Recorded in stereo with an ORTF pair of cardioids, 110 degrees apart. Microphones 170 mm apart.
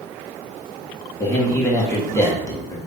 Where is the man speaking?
20° left, 1.7 m.